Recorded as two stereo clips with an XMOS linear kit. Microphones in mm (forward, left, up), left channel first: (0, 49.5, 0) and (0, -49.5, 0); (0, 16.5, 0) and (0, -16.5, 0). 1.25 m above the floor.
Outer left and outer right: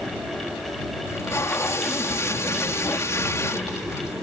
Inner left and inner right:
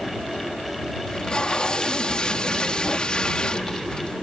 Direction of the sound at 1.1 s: 30° left (ahead or behind).